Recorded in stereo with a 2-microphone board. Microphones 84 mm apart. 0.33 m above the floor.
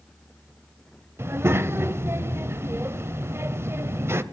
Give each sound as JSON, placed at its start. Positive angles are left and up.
{"t": 1.2, "sound": "a child speaking", "side_deg": -30, "distance_m": 0.6}